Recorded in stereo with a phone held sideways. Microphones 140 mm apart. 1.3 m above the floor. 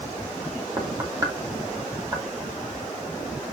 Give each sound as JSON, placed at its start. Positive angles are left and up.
{"t": 0.8, "sound": "knocking", "side_deg": -25, "distance_m": 2.5}